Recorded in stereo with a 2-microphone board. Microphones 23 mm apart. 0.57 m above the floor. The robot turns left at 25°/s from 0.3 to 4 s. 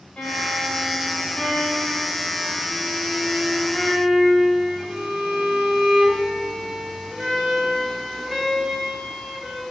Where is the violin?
90° left, 2.5 m; by 9.6 s straight ahead, 2.5 m.